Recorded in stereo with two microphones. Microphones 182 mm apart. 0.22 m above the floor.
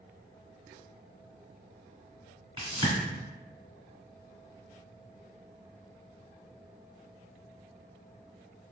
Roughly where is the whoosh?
Right.